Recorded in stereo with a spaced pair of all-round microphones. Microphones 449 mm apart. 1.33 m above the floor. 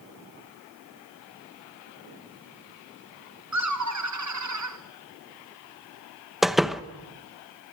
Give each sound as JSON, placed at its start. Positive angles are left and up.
{"t": 3.5, "sound": "laughter", "side_deg": -40, "distance_m": 0.9}
{"t": 6.4, "sound": "a door slam", "side_deg": 0, "distance_m": 0.9}